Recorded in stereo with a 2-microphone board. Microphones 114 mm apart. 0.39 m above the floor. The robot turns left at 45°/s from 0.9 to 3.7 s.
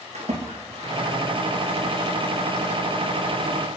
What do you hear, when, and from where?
0.1 s a splash: 70° right (ahead or behind), 4 m; by 1.1 s 60° right (ahead or behind), 4 m